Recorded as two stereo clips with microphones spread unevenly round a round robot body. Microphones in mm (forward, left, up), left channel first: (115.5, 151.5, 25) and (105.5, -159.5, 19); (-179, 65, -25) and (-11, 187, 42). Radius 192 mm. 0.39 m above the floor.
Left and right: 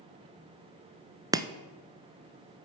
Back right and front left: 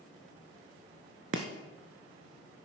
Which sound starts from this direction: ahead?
Chopping, at 1.3 s.